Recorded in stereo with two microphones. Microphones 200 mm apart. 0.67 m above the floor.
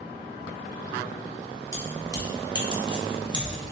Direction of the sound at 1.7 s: 15° left (ahead or behind).